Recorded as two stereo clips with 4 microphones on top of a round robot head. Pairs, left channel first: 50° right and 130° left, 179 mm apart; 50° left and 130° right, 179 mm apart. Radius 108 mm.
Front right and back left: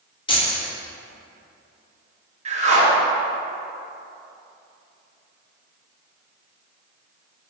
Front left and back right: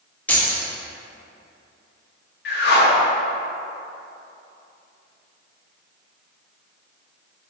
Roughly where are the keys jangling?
Ahead right.